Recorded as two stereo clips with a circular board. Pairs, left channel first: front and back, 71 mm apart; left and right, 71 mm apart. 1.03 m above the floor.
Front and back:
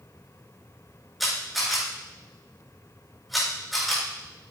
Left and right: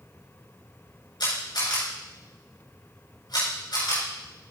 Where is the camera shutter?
90° left, 6.5 m.